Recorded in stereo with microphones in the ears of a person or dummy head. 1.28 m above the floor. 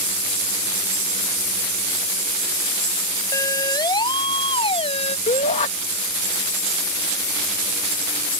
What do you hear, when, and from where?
3.3 s a siren: 20° left (ahead or behind); by 5.2 s 35° left (ahead or behind)
5.3 s a shout: 35° left (ahead or behind)